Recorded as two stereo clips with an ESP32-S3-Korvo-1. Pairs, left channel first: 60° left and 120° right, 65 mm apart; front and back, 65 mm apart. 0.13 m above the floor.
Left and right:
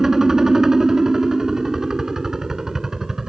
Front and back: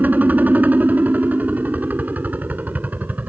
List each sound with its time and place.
0.0 s a helicopter: 170° left